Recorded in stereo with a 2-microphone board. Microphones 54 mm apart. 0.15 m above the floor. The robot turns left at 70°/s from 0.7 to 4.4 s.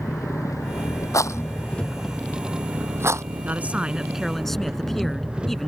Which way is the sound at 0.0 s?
95° left.